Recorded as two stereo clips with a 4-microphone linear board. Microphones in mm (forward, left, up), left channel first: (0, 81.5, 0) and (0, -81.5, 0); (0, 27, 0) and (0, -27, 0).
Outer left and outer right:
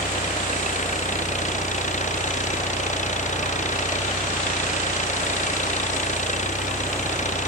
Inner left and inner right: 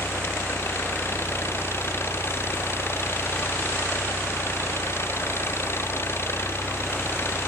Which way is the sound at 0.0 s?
50° left (ahead or behind).